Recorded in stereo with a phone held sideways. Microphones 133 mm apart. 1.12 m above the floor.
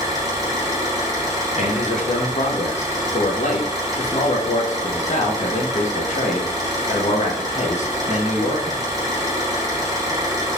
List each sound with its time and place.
0.0 s an engine running: 25° right (ahead or behind), 0.9 m
1.6 s a man speaking: 60° left (ahead or behind), 0.8 m